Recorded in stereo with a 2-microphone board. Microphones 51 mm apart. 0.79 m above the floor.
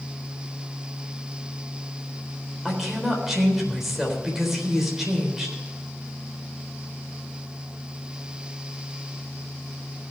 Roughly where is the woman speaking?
Centre.